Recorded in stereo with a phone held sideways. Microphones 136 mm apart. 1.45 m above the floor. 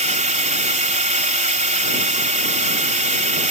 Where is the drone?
55° right (ahead or behind).